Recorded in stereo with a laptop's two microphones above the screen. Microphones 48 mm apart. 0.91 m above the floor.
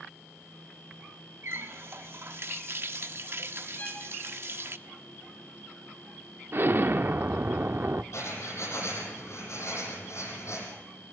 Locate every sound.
1.4 s a running tap: 55° right (ahead or behind), 1.0 m
3.8 s a violin: 40° left (ahead or behind), 4 m
6.5 s an explosion: 50° right (ahead or behind), 0.6 m
8.1 s writing: 75° left (ahead or behind), 5.5 m